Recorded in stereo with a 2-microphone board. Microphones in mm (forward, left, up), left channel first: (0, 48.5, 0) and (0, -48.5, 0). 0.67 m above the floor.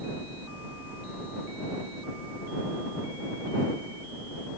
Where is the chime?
I don't hear a chime.